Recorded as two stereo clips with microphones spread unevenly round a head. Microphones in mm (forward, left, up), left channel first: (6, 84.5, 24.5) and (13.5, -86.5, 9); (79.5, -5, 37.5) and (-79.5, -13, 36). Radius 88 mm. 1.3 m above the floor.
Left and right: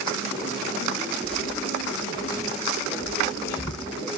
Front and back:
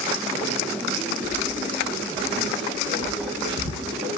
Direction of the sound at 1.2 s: 155° left.